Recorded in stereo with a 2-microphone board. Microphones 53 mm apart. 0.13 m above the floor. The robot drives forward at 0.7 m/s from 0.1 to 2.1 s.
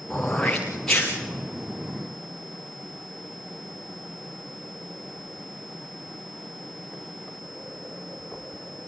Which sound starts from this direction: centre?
Throat clearing, at 0.1 s.